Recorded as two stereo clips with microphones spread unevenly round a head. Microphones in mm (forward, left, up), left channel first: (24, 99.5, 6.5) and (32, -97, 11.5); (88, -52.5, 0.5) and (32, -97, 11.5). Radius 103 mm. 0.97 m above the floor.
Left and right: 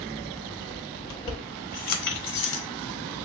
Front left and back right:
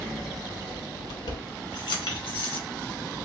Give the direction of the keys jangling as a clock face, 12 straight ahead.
11 o'clock.